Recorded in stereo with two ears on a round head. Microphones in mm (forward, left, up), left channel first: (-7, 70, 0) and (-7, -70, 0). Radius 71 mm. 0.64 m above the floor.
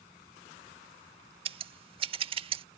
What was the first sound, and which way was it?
Scissors, 35° right (ahead or behind).